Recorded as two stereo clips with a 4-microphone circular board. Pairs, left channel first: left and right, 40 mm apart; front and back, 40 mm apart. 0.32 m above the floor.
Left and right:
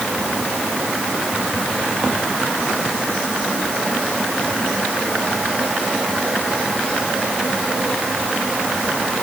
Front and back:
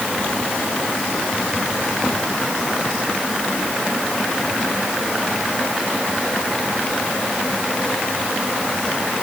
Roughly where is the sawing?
No sawing in this recording.